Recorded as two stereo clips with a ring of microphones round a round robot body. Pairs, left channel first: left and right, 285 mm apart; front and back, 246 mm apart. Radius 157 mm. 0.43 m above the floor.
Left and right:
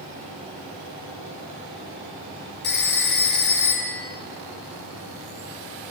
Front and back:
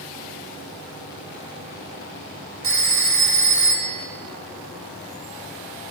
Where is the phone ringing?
145° left, 3 m.